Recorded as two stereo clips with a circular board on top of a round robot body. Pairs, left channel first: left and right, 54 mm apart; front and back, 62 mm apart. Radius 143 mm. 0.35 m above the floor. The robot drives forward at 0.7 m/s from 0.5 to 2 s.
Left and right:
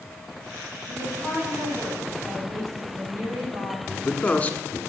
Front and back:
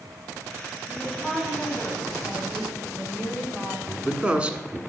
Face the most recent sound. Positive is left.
turn(degrees=130)